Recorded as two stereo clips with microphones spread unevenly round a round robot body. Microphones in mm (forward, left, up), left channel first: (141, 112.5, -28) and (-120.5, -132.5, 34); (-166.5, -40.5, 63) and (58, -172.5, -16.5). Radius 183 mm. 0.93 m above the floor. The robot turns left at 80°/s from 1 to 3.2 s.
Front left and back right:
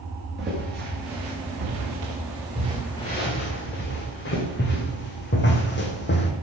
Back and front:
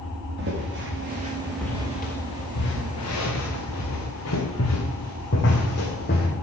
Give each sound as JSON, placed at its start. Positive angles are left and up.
{"t": 0.4, "sound": "footsteps", "azimuth_deg": -75, "distance_m": 5.5}